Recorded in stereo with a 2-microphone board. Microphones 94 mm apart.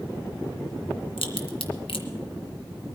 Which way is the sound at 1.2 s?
80° left.